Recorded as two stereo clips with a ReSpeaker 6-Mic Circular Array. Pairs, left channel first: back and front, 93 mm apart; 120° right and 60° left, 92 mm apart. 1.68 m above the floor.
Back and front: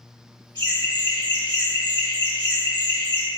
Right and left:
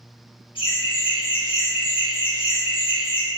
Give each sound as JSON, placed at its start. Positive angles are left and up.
{"t": 0.6, "sound": "laughter", "azimuth_deg": -140, "distance_m": 1.7}